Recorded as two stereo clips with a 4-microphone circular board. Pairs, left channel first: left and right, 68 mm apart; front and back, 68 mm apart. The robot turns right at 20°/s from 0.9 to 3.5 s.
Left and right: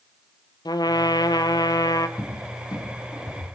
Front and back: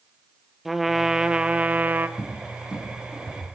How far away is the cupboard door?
About 4.5 m.